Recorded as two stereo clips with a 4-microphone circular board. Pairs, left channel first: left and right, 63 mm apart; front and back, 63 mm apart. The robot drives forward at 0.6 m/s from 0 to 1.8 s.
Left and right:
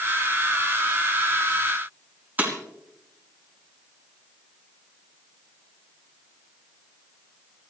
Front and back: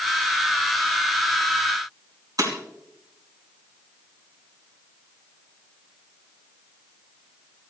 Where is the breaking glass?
155° right, 3.5 m.